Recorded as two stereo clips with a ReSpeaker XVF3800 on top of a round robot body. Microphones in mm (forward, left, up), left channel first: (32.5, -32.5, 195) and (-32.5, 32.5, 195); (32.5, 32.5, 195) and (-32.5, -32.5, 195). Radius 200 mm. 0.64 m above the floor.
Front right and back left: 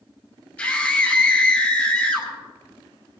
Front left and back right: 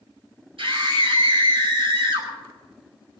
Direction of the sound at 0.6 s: 115° right.